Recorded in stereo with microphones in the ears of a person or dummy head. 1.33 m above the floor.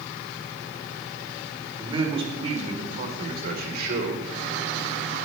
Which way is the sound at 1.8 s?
30° right (ahead or behind).